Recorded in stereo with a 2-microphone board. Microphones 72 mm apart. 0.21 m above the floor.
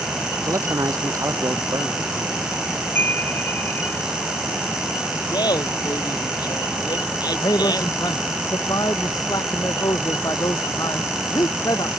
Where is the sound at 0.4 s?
45° right (ahead or behind).